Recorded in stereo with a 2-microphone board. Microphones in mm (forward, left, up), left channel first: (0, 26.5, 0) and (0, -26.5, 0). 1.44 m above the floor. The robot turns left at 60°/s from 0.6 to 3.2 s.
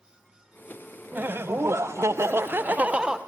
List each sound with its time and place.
1.1 s laughter: 45° right, 0.6 m; by 3.2 s 165° right, 0.6 m